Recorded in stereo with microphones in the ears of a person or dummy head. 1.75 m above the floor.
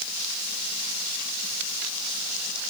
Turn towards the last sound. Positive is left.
No sound to turn to.